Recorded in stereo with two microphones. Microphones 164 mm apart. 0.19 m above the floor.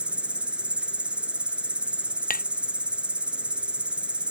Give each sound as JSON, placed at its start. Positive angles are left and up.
{"t": 0.0, "sound": "an insect", "side_deg": -5}
{"t": 2.3, "sound": "tapping", "side_deg": 60}